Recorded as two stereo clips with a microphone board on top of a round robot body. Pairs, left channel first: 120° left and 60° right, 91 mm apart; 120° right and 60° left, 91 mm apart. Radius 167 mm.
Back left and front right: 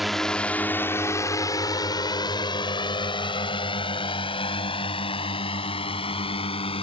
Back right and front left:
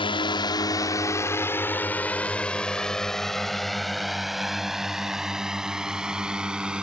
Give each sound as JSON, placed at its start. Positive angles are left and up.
{"t": 0.0, "sound": "a drone", "azimuth_deg": -150}